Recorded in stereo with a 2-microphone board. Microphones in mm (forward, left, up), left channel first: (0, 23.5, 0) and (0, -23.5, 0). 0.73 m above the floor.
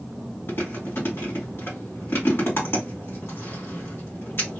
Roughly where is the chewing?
Left.